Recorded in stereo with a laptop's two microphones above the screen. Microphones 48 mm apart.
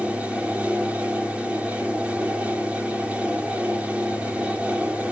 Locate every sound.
0.0 s a fan: 30° right (ahead or behind), 2.5 m